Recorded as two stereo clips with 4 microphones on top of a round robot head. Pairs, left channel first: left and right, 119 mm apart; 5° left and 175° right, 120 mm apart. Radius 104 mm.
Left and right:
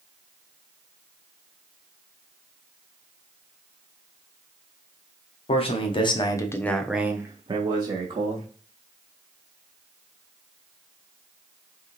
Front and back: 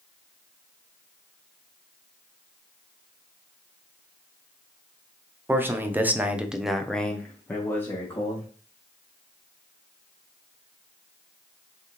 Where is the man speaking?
115° left, 1.1 m; by 8.5 s 60° right, 1.2 m.